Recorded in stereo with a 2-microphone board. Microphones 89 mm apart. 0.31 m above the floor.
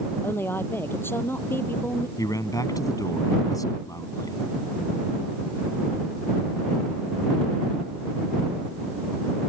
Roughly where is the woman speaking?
Left.